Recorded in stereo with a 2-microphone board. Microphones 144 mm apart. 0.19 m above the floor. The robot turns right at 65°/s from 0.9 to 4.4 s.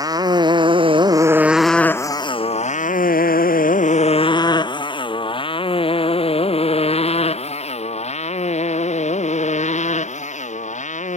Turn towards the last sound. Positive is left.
turn(degrees=55)  # may be behind; listen again after turning